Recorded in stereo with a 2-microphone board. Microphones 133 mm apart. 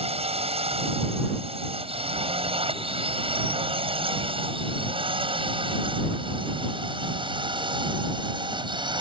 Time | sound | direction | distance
0.0 | a drone | 50° right (ahead or behind) | ?